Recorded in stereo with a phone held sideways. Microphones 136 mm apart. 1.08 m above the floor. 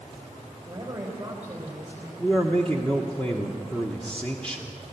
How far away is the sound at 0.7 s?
About 3.5 m.